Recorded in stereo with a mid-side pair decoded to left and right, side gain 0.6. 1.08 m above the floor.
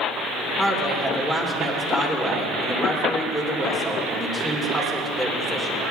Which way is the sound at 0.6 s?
5° left.